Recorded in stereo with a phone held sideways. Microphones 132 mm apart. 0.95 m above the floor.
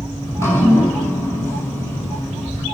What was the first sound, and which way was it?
Dripping, 20° left (ahead or behind).